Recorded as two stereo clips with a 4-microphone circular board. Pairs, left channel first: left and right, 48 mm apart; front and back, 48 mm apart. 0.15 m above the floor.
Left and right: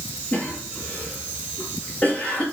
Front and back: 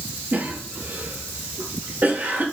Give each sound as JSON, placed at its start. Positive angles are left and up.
{"t": 0.3, "sound": "a cough", "azimuth_deg": 140, "distance_m": 3.0}